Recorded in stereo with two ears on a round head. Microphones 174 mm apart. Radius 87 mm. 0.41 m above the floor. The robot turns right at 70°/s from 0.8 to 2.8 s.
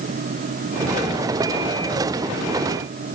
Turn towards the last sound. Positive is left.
No sound to turn to.